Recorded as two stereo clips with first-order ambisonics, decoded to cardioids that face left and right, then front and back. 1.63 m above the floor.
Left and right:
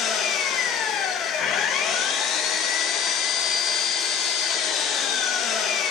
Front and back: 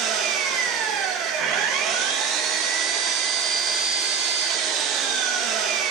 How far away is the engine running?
About 2.0 m.